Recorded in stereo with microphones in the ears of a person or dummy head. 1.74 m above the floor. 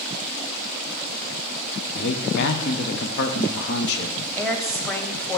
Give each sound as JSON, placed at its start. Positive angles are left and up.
{"t": 1.9, "sound": "a man speaking", "side_deg": 65, "distance_m": 0.8}
{"t": 4.4, "sound": "a woman speaking", "side_deg": 10, "distance_m": 0.9}